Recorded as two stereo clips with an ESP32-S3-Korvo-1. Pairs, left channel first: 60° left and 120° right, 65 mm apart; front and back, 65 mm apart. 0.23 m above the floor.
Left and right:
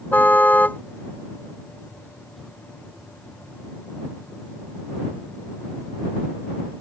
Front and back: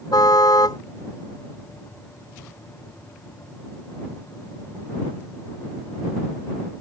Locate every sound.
0.1 s a car horn: 5° right